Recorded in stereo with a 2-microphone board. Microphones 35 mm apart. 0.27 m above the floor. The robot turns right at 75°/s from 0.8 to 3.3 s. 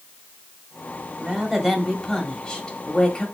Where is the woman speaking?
45° right, 1.1 m; by 3.2 s 110° left, 1.1 m.